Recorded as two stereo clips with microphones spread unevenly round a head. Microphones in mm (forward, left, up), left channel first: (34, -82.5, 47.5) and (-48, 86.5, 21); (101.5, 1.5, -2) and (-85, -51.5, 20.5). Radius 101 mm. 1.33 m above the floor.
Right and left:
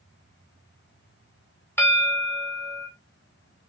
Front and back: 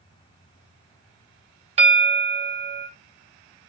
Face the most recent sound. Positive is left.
turn(degrees=-130)